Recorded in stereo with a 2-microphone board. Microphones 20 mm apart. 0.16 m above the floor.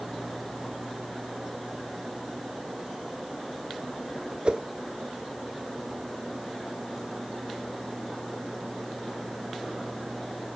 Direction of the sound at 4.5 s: 50° right (ahead or behind).